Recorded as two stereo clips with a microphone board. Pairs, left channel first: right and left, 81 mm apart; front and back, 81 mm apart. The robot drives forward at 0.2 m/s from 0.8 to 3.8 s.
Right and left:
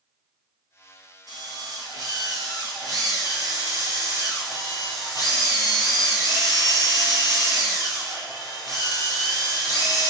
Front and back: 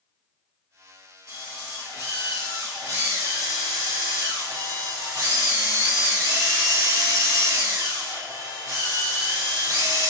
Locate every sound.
1.3 s a drill: 130° left, 3.5 m; by 10.1 s 135° left, 4 m